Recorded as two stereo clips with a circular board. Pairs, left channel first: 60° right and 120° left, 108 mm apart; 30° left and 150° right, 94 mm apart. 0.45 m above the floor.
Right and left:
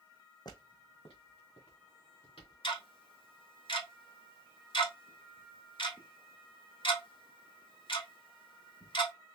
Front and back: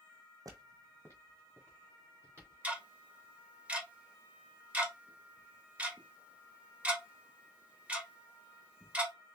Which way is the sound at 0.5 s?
105° right.